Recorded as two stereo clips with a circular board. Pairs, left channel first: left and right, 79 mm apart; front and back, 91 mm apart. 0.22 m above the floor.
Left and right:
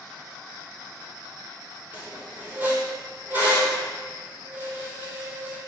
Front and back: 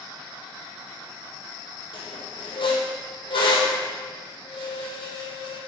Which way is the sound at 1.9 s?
25° right.